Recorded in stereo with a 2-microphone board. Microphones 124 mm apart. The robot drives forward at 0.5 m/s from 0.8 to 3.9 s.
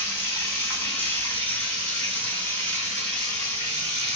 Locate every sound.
0.0 s running water: 20° left (ahead or behind), 2.5 m; by 4.2 s 10° left (ahead or behind), 4 m